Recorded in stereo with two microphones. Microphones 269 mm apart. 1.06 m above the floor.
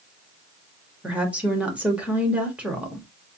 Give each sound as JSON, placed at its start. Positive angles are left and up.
{"t": 1.0, "sound": "a woman speaking", "side_deg": -5, "distance_m": 1.6}